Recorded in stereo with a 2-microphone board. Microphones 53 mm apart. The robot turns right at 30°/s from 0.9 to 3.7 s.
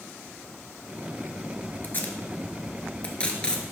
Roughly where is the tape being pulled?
Left.